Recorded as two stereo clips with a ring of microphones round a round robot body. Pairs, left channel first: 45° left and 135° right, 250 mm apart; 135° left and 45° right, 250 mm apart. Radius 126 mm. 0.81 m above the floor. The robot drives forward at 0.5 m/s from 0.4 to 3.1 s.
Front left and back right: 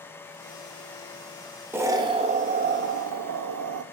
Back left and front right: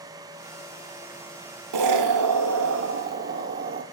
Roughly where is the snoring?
No snoring in this recording.